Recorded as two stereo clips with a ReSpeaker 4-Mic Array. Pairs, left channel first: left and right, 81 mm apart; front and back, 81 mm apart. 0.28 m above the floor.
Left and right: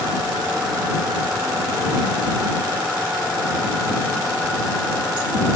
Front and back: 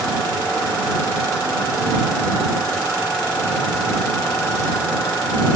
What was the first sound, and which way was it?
Only background noise.